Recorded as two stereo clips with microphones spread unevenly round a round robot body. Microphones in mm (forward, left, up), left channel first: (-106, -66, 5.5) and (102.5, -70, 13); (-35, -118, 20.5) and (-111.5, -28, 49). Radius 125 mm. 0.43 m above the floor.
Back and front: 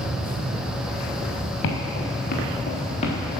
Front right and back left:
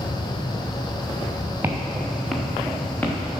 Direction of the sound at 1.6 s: 160° right.